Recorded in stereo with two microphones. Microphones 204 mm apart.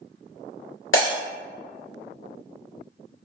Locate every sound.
0.9 s breaking glass: 75° left (ahead or behind), 1.3 m